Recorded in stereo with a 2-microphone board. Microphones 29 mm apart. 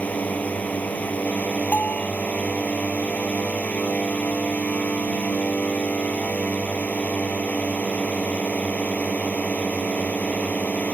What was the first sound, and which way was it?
A drone, 65° left (ahead or behind).